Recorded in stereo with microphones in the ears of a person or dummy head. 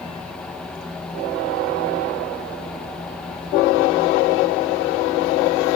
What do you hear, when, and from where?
0.0 s a fan: 5° left (ahead or behind), 1.6 m